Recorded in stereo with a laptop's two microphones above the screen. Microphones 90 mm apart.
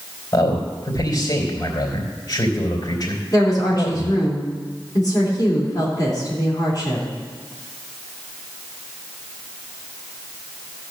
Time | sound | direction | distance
0.3 | a man speaking | 50° left (ahead or behind) | 3.5 m
3.3 | a woman speaking | 45° left (ahead or behind) | 3 m